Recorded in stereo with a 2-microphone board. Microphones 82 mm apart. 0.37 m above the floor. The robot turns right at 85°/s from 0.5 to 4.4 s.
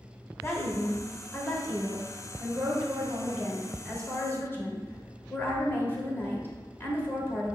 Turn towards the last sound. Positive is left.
turn(degrees=55)